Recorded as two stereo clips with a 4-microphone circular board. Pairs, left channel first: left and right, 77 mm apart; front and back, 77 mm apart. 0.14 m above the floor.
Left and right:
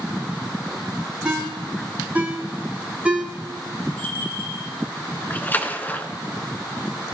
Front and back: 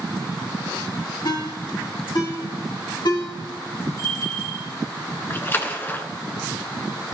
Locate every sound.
1.2 s a ringtone: 15° right, 5 m
4.0 s a bell: 30° left, 4 m
5.3 s a splash: 40° left, 1.3 m